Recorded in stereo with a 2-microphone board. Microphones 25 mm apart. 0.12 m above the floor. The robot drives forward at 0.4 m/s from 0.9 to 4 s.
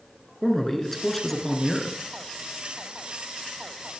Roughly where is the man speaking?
Centre.